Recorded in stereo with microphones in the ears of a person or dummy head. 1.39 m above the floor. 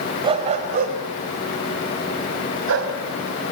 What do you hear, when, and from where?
0.2 s a dog barking: 25° right (ahead or behind), 2.5 m; by 2.9 s 75° right (ahead or behind), 3.5 m